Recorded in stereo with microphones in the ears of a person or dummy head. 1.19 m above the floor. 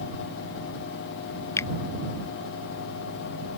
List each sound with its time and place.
1.6 s a finger snap: 20° left (ahead or behind)